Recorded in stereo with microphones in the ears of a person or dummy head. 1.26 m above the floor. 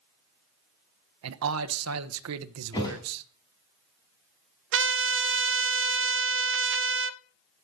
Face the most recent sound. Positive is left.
turn(degrees=-55)  # may be behind; listen again after turning